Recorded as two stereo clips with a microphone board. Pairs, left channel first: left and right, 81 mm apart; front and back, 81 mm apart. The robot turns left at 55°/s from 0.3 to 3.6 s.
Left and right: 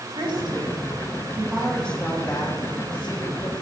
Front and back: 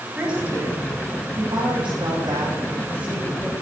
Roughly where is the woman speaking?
Right.